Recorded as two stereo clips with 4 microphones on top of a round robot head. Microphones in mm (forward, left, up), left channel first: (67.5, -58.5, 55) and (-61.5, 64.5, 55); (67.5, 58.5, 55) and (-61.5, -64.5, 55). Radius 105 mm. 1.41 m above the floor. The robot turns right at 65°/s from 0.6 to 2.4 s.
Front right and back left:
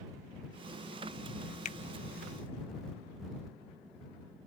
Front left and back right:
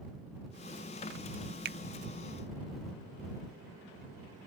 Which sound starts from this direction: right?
A finger snap, at 1.6 s.